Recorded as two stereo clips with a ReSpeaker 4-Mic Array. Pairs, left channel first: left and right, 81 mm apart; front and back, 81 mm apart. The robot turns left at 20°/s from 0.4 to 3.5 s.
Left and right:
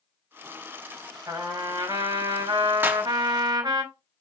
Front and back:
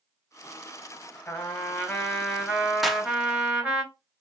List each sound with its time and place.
1.3 s a trumpet: 65° right, 4 m; by 3.8 s 110° right, 4 m
2.8 s a clap: 95° right, 0.9 m; by 3.0 s 100° right, 0.9 m